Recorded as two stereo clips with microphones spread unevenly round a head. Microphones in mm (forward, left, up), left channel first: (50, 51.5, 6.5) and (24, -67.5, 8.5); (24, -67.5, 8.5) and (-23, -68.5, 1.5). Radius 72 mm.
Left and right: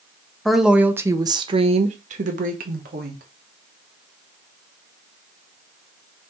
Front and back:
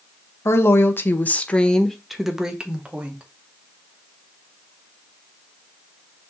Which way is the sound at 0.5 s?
10° right.